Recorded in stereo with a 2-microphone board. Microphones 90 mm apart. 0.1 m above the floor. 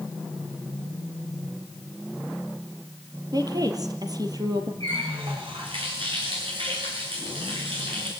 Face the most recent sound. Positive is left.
turn(degrees=-80)